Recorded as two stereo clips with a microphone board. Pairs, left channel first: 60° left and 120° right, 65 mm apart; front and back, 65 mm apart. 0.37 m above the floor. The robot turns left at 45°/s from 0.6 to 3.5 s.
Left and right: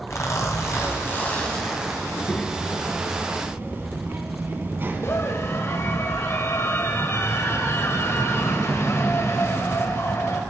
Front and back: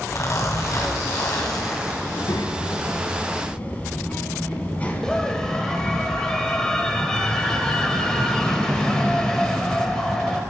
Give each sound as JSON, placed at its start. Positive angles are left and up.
{"t": 0.1, "sound": "a zipper", "azimuth_deg": 25, "distance_m": 3.0}
{"t": 2.0, "sound": "a child speaking", "azimuth_deg": 0, "distance_m": 2.0}
{"t": 5.0, "sound": "a scream", "azimuth_deg": 75, "distance_m": 1.7}